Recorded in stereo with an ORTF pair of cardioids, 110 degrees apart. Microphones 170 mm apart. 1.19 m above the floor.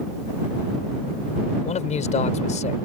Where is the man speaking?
45° left.